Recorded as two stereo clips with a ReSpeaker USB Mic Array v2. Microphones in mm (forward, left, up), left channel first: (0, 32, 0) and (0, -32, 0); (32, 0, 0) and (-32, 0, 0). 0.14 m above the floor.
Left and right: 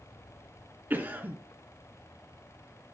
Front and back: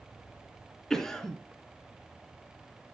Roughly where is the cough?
Right.